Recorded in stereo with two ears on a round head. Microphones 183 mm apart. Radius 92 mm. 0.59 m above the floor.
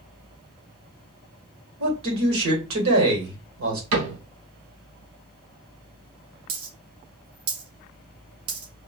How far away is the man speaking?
About 2 m.